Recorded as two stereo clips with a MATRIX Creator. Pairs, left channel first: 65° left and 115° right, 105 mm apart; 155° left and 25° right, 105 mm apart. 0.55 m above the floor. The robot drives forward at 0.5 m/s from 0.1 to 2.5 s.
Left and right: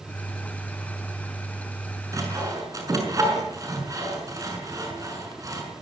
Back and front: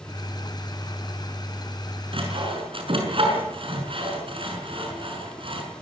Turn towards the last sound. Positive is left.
turn(degrees=-55)